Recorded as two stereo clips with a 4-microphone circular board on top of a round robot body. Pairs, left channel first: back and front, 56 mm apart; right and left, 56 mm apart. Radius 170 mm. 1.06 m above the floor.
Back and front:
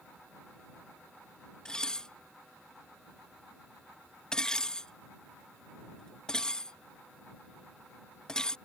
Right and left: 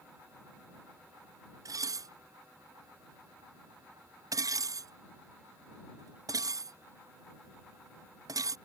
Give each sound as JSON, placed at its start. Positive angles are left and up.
{"t": 1.6, "sound": "dishes clattering", "azimuth_deg": 100}